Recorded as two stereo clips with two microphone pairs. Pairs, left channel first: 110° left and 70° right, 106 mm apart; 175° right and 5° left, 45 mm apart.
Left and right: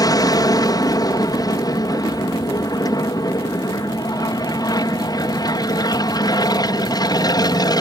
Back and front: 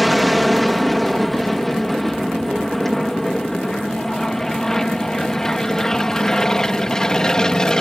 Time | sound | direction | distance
0.0 | an aircraft | 95° left | ?